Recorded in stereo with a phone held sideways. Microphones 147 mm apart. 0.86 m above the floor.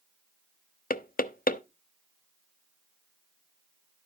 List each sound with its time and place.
0.9 s knocking: 75° left (ahead or behind), 0.7 m